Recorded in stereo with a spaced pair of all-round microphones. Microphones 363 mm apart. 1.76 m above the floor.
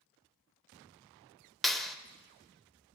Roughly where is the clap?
Centre.